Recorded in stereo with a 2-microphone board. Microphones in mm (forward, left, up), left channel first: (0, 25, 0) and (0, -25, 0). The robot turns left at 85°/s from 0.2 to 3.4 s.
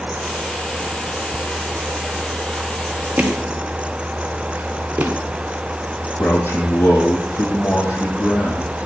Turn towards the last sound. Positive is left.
turn(degrees=55)  # may be behind; listen again after turning